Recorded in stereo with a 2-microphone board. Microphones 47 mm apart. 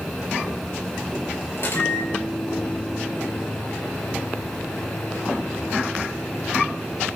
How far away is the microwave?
About 5 m.